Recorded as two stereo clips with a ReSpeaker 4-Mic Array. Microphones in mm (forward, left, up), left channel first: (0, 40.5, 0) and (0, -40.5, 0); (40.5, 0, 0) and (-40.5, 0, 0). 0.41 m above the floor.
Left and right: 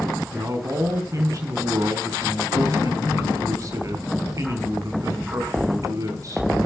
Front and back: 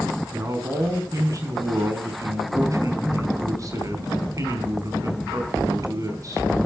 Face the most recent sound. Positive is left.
turn(degrees=-135)